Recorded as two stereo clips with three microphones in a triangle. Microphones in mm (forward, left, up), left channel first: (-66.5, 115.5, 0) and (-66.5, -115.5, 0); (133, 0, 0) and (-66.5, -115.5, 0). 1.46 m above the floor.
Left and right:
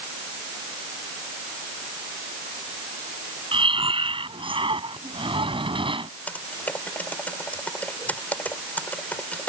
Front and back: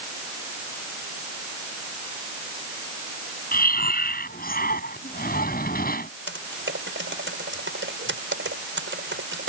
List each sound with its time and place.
3.5 s breathing: 20° right
6.3 s typing on a keyboard: 175° left